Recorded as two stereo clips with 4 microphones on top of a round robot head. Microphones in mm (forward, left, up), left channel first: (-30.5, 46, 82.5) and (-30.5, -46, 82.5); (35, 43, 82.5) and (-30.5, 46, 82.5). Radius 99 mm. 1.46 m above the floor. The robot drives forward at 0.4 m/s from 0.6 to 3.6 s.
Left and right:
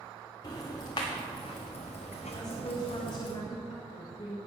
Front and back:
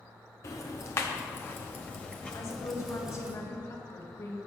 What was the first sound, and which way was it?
Ticking, 30° left.